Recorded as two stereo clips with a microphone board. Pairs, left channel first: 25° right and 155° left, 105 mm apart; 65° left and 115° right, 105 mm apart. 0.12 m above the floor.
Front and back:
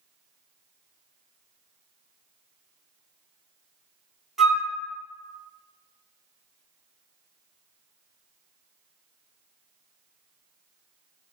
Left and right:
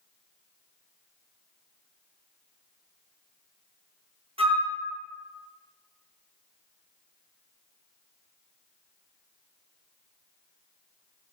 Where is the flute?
115° right, 0.9 m.